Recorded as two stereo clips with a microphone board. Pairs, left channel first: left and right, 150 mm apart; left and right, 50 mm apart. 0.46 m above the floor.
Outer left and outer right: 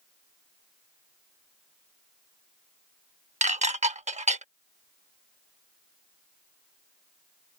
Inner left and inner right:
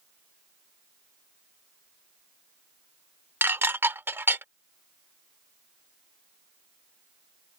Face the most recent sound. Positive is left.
turn(degrees=-50)  # may be behind; listen again after turning